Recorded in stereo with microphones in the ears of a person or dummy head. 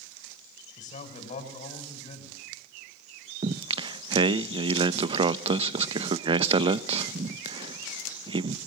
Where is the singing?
30° right (ahead or behind), 0.6 m.